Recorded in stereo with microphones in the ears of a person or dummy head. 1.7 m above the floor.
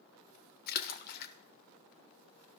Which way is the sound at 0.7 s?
55° left (ahead or behind).